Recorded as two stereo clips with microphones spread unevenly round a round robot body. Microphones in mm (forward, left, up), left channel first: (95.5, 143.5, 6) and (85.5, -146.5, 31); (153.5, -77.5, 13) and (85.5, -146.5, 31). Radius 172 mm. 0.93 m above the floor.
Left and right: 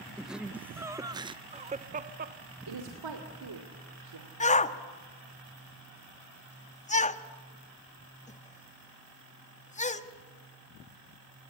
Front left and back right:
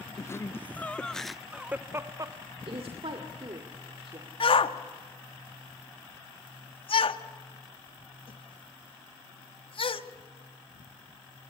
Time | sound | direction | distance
0.2 | laughter | straight ahead | 1.1 m
2.7 | a woman speaking | 105° right | 2.5 m
4.4 | a shout | 20° left | 1.4 m